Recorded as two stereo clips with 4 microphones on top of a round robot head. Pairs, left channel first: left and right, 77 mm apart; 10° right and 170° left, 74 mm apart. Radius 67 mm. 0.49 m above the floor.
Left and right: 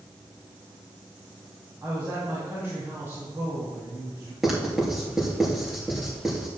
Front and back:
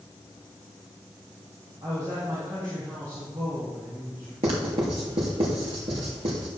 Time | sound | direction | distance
1.8 | a woman speaking | 145° right | 4 m
4.4 | writing | 175° right | 3.5 m